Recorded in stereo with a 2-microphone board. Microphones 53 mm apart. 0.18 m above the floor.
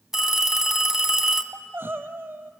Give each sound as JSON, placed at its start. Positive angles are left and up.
{"t": 0.1, "sound": "a phone ringing", "side_deg": -10, "distance_m": 1.1}
{"t": 1.5, "sound": "crying", "side_deg": -45, "distance_m": 0.8}